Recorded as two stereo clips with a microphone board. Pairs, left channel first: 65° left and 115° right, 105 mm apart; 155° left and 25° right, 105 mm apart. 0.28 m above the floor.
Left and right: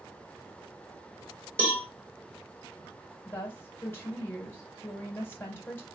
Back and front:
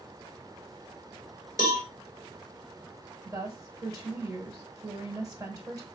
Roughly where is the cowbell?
Ahead.